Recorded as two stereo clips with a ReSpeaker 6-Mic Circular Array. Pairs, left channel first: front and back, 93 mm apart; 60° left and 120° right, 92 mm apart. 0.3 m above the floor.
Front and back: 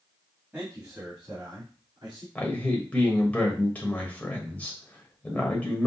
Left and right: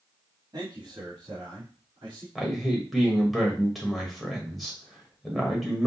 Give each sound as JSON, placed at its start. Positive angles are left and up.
{"t": 0.5, "sound": "a man speaking", "azimuth_deg": -120, "distance_m": 1.7}
{"t": 2.4, "sound": "a man speaking", "azimuth_deg": -35, "distance_m": 0.9}